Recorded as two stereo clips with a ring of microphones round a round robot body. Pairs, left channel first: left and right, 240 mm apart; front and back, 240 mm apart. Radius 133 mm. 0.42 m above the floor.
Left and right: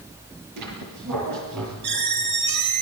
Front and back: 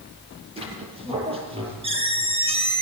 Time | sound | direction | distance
0.6 | a squeak | 115° right | 7 m